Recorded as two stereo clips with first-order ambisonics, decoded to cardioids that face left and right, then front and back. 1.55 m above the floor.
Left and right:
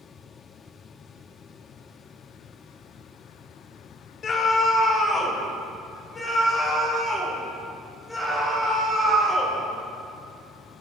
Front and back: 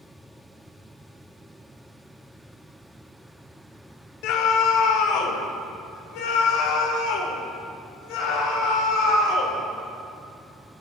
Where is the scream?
25° left, 1.2 m; by 9.6 s 5° left, 4 m.